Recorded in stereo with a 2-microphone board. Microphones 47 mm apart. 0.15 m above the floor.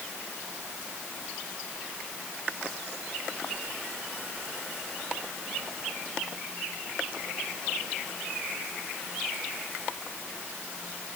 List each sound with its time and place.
Only background noise.